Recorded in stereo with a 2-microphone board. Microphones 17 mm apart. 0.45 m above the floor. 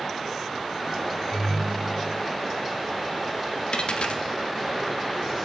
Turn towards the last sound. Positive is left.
turn(degrees=70)  # may be behind; listen again after turning